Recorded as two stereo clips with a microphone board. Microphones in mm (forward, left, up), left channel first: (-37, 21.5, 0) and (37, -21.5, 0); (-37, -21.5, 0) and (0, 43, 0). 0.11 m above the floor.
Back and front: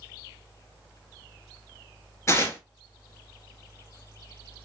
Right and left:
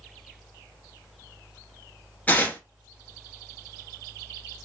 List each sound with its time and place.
2.3 s tearing paper: 175° right, 0.8 m